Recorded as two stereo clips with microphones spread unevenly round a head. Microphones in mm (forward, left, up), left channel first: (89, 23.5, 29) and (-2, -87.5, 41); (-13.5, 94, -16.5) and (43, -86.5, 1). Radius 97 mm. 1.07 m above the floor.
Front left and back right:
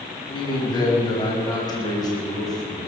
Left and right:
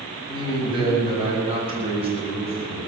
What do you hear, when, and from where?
0.3 s a man speaking: 10° right, 8 m; by 2.8 s 15° right, 9.5 m